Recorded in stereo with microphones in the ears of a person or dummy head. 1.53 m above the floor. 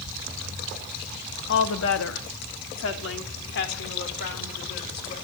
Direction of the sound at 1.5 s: 65° left (ahead or behind).